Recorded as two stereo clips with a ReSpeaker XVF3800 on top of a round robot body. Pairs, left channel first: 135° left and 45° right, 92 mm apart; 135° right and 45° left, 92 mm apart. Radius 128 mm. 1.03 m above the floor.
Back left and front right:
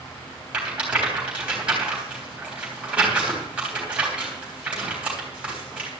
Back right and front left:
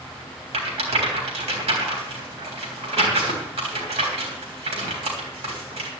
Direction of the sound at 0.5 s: 35° left.